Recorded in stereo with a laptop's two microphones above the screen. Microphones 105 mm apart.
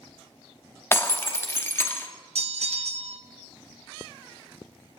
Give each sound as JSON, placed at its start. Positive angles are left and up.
{"t": 0.9, "sound": "breaking glass", "side_deg": 20, "distance_m": 0.8}
{"t": 2.4, "sound": "a bell", "side_deg": -75, "distance_m": 0.6}